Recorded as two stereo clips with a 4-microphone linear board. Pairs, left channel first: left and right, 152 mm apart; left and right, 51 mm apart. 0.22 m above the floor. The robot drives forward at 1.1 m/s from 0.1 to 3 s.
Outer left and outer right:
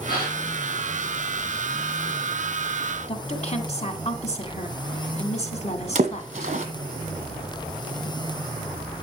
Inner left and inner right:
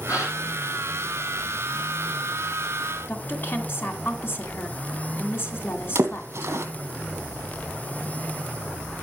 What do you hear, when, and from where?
0.1 s a gasp: 80° left, 7 m
3.1 s a woman speaking: 45° left (ahead or behind), 2.0 m
6.0 s a splash: 50° right (ahead or behind), 1.5 m